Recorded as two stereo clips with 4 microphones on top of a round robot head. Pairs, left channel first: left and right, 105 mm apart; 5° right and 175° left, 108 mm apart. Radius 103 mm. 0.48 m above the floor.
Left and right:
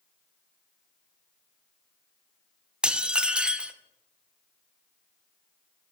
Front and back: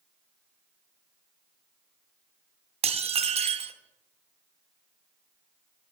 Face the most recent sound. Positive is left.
turn(degrees=-170)